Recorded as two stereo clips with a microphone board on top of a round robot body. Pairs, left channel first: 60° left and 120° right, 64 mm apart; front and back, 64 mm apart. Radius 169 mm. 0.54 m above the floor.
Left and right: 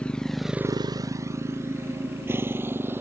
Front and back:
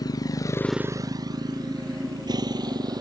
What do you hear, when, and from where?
0.0 s a motorcycle: 15° right; by 3.0 s straight behind